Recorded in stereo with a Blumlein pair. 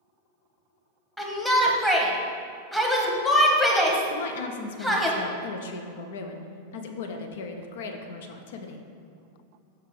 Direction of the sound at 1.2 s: 5° left.